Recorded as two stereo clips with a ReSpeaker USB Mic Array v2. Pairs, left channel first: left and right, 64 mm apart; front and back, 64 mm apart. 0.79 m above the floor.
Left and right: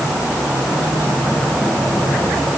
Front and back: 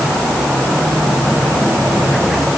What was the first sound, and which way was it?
Only background noise.